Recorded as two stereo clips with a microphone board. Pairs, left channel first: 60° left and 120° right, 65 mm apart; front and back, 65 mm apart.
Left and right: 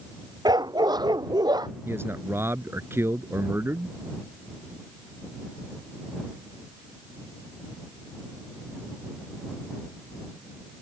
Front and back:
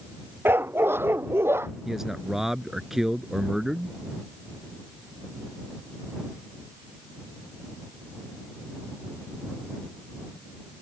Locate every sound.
0.5 s a dog barking: 120° right; by 1.7 s 125° right
1.9 s a man speaking: 100° right